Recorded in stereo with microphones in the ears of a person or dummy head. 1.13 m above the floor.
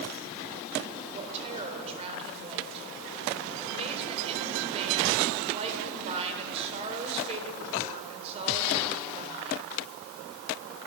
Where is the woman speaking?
30° right (ahead or behind), 4 m.